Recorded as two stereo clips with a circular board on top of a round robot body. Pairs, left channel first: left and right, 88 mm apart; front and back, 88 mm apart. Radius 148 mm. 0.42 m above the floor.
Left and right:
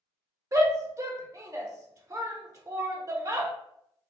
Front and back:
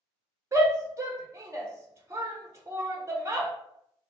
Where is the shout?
130° right, 1.3 m.